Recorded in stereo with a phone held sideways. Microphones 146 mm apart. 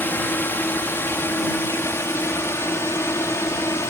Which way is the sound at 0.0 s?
15° left (ahead or behind).